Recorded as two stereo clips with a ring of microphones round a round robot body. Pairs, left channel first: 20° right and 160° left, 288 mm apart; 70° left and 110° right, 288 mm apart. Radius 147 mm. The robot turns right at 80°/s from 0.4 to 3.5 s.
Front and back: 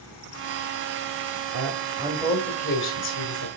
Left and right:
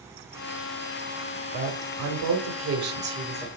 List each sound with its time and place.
1.5 s a woman speaking: 170° right, 2 m; by 3.5 s 15° right, 2 m